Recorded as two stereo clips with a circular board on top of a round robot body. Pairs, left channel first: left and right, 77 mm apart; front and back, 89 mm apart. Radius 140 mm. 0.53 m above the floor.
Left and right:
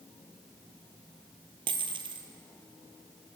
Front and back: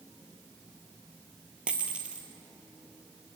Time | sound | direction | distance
1.7 | a dropped coin | 100° right | 0.6 m